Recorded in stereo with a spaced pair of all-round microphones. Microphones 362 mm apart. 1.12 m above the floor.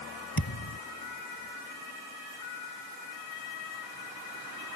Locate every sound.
0.4 s a thud: 70° left (ahead or behind)